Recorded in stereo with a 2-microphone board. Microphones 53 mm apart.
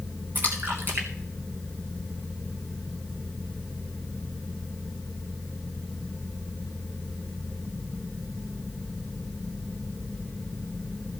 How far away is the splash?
About 3 m.